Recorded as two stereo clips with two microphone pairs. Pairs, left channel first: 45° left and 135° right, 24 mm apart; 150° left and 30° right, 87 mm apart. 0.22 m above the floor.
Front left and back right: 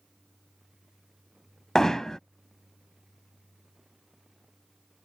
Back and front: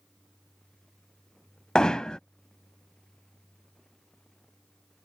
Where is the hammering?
70° left.